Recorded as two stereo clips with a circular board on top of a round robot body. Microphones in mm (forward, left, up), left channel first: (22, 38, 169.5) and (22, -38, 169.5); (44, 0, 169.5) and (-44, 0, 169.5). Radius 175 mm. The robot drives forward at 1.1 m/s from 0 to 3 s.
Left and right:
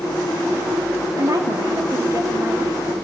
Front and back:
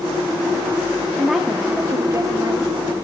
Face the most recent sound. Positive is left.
turn(degrees=-150)